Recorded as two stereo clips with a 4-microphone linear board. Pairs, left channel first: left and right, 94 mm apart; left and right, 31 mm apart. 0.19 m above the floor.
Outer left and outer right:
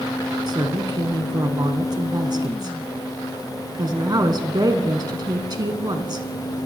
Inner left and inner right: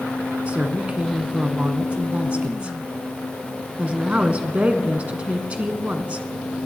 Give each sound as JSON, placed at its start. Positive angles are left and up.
{"t": 0.5, "sound": "a woman speaking", "side_deg": -50, "distance_m": 1.6}